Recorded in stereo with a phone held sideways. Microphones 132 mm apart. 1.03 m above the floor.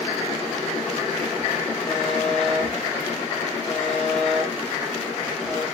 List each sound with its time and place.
1.9 s a buzzer: 20° left (ahead or behind), 7.5 m